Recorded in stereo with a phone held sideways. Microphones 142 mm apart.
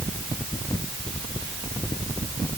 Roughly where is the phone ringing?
I don't hear a phone ringing.